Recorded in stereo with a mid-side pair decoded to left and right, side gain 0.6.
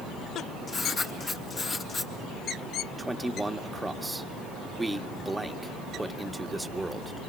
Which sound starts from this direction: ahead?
A man speaking, at 3.0 s.